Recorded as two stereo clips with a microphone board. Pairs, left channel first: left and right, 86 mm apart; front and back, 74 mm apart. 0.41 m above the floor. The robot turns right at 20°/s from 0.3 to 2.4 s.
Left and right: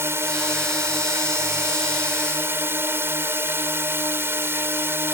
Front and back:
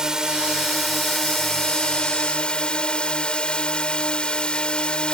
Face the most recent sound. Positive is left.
turn(degrees=-65)